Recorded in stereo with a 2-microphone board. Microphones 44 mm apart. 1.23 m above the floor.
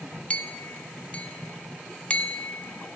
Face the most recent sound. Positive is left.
turn(degrees=30)  # may be behind; listen again after turning